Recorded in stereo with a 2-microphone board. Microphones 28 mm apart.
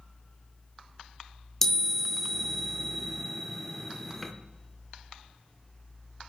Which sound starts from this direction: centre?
A chime, at 1.6 s.